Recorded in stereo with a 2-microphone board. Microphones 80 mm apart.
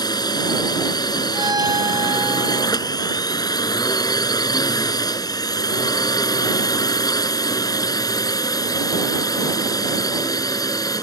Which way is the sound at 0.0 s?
60° left (ahead or behind).